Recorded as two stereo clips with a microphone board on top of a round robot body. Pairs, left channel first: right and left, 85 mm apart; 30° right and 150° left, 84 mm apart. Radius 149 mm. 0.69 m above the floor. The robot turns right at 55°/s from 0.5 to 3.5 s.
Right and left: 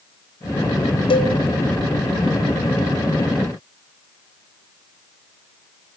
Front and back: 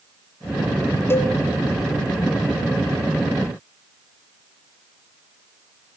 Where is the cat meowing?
No cat meowing in this recording.